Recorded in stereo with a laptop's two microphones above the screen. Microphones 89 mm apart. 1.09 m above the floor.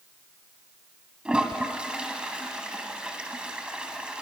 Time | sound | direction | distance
1.2 | a toilet flushing | 10° right (ahead or behind) | 1.3 m